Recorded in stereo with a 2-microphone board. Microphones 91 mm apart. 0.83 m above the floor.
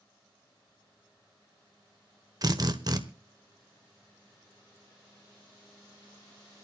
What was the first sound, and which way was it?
A drill, 45° right (ahead or behind).